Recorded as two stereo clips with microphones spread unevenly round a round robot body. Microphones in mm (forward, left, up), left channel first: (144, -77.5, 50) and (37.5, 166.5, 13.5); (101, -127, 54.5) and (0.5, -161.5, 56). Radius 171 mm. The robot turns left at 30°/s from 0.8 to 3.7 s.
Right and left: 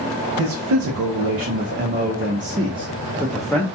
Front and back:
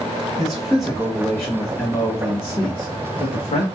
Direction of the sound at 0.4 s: 105° left.